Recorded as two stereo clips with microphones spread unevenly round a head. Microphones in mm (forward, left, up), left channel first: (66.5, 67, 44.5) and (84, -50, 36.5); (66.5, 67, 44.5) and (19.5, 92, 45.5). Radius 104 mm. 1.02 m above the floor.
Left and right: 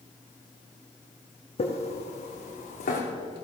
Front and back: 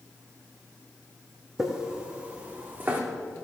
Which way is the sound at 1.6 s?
70° left.